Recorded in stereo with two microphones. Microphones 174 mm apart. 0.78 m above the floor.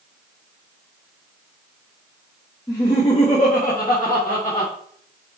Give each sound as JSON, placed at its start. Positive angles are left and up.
{"t": 2.7, "sound": "laughter", "side_deg": 25, "distance_m": 1.1}